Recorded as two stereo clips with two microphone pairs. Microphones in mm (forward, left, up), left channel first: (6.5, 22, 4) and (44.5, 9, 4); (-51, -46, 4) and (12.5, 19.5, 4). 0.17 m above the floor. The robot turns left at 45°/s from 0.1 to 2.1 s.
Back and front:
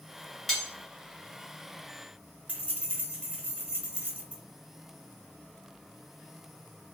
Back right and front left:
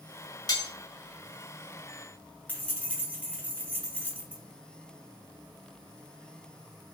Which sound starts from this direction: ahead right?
Keys jangling, at 2.5 s.